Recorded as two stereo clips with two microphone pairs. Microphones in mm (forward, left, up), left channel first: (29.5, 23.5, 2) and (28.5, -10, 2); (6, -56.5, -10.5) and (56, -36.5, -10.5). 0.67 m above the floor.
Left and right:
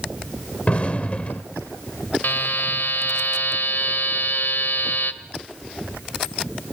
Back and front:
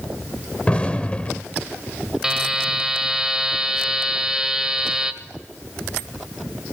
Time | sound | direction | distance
0.7 | an explosion | 135° left | 1.6 m
2.2 | a buzzer | 100° left | 1.2 m